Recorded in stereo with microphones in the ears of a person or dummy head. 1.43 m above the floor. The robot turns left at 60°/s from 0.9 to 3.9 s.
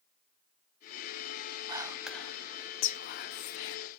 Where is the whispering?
20° right (ahead or behind), 0.7 m; by 3.8 s 65° left (ahead or behind), 0.7 m.